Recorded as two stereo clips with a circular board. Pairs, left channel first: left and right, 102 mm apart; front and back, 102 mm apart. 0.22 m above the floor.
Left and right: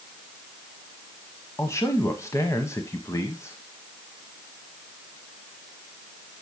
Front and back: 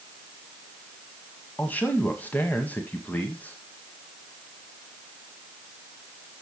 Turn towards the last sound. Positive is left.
turn(degrees=60)